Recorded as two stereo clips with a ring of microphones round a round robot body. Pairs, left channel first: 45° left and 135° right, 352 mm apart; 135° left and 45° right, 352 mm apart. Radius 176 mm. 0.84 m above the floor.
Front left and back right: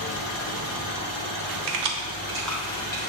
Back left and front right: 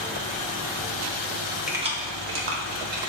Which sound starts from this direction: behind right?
Keys jangling, at 1.7 s.